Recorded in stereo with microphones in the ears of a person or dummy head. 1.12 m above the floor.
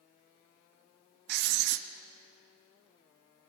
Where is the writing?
65° right (ahead or behind), 1.0 m.